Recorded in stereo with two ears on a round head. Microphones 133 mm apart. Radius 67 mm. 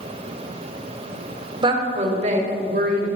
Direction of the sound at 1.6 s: 35° right (ahead or behind).